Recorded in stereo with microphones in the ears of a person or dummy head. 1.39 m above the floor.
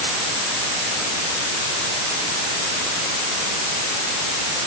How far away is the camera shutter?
I don't hear a camera shutter.